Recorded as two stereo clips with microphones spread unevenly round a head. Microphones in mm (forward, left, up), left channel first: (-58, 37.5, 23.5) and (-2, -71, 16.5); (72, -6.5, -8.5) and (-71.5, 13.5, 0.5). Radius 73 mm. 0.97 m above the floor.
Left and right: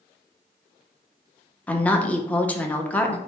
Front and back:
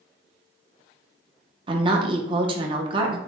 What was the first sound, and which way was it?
A woman speaking, 170° right.